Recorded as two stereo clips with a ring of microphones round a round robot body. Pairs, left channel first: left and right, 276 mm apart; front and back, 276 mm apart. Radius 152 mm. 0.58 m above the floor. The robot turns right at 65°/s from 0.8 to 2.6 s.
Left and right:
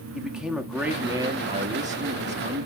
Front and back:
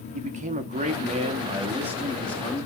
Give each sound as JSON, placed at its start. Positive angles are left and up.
{"t": 0.1, "sound": "a man speaking", "azimuth_deg": -175, "distance_m": 1.2}